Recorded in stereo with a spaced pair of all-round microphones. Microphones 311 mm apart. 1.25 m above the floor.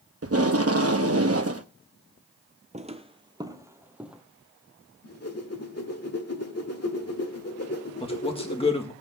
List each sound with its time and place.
0.2 s tape being pulled: 50° right (ahead or behind), 0.8 m
2.7 s footsteps: 25° right (ahead or behind), 1.3 m; by 4.2 s centre (ahead or behind), 1.5 m
5.0 s a whoosh: 50° left (ahead or behind), 1.6 m
8.0 s a man speaking: 20° left (ahead or behind), 1.8 m